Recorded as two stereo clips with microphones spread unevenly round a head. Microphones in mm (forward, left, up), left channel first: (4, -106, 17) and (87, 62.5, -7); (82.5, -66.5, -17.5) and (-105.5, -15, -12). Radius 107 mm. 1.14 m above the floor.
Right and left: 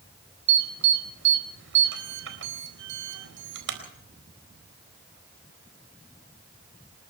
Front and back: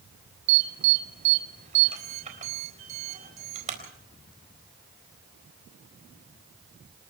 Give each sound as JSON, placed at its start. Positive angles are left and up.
{"t": 0.5, "sound": "an alarm", "azimuth_deg": 105, "distance_m": 4.0}